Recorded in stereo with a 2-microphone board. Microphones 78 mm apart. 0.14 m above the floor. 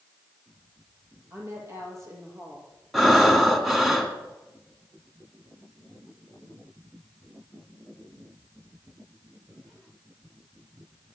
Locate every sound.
1.3 s a woman speaking: 35° right (ahead or behind), 4.5 m
2.9 s breathing: 5° right (ahead or behind), 1.7 m